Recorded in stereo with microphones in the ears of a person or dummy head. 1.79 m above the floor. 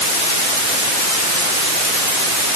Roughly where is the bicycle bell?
I don't hear a bicycle bell.